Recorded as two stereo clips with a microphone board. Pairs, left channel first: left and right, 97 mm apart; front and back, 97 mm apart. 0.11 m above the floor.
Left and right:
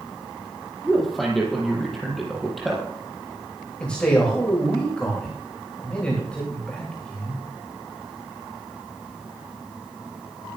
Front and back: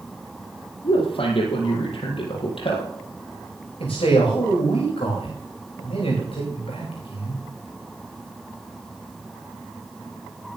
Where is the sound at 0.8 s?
Straight ahead, 4.5 m.